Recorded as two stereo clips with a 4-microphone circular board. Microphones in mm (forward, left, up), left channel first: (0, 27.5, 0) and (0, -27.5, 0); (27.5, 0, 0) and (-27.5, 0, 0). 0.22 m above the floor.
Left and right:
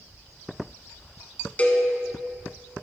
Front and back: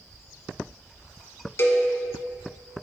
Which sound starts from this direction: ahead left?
A cowbell, at 1.6 s.